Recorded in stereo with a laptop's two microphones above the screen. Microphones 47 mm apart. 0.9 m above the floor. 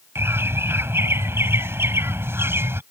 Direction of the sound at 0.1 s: 75° right (ahead or behind).